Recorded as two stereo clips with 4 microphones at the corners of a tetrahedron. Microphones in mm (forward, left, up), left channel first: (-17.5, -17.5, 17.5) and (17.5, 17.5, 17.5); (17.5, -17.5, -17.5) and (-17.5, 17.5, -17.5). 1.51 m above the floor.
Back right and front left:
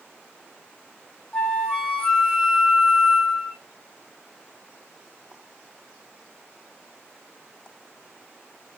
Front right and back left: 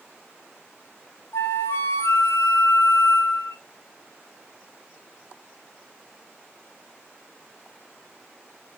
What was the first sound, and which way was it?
A flute, 65° right.